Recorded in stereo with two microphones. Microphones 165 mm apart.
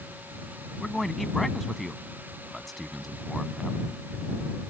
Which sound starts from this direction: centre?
A man speaking, at 0.8 s.